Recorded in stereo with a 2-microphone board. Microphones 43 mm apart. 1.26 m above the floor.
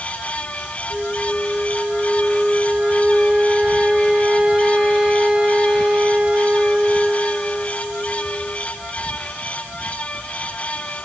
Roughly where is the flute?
Centre.